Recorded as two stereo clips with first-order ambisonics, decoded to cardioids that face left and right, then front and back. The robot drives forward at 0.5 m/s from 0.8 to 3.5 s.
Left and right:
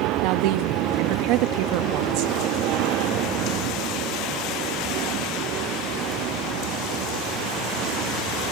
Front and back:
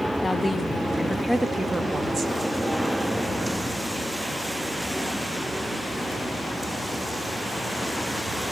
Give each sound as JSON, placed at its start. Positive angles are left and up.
{"t": 0.2, "sound": "a woman speaking", "azimuth_deg": -80, "distance_m": 1.3}